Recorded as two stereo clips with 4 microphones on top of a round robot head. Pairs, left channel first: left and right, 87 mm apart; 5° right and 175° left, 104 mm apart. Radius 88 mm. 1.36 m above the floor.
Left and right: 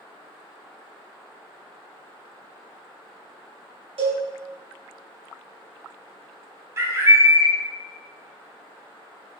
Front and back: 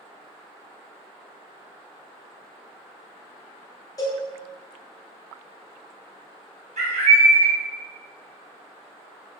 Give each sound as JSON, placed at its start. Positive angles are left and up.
{"t": 4.0, "sound": "a cowbell", "azimuth_deg": -70, "distance_m": 1.2}
{"t": 6.8, "sound": "a bird", "azimuth_deg": -150, "distance_m": 0.8}